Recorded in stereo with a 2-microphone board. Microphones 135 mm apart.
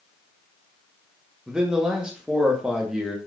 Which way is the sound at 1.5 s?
5° right (ahead or behind).